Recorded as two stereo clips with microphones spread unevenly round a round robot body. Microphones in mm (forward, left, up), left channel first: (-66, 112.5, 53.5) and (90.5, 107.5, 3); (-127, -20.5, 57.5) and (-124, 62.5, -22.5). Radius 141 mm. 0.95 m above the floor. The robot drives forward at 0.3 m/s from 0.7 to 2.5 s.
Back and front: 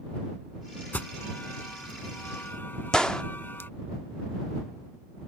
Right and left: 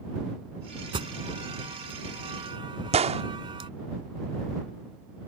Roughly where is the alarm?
Left.